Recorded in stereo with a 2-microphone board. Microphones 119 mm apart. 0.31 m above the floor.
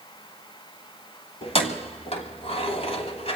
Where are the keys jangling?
60° left (ahead or behind), 1.5 m.